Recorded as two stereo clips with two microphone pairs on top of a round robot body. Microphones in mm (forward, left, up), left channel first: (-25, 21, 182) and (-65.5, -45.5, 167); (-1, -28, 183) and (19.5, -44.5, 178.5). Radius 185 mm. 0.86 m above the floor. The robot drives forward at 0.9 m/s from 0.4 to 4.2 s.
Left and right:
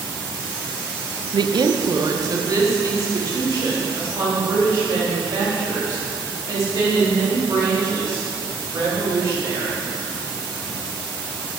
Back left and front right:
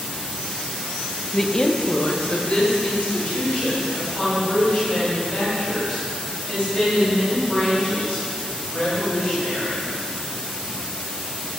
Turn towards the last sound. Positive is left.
turn(degrees=-175)